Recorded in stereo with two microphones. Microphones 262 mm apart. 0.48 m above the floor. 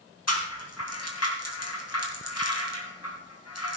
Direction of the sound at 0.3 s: 80° left.